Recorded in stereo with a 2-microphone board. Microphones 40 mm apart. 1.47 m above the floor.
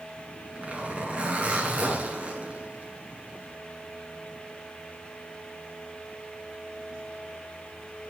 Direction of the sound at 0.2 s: 35° right (ahead or behind).